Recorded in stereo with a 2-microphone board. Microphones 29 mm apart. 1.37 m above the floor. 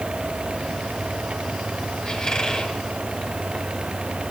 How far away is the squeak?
About 7 m.